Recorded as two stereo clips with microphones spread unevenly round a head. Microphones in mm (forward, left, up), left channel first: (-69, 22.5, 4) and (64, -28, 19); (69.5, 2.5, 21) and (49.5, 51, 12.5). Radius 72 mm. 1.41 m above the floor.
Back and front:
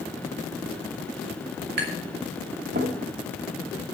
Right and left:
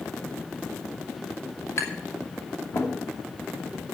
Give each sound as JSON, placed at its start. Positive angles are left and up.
{"t": 1.8, "sound": "tapping", "azimuth_deg": -35, "distance_m": 2.5}